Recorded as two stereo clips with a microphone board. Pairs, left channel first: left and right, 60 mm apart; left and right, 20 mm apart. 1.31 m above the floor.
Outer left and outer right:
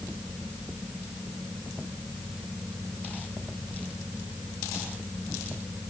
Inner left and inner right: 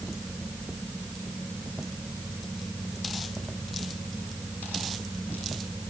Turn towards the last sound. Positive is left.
No sound to turn to.